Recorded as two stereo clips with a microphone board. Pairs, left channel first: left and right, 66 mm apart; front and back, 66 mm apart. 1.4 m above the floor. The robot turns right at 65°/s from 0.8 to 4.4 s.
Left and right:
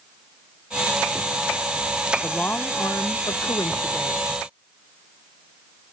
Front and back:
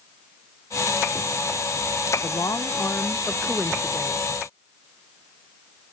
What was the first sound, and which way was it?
A woman speaking, 5° left.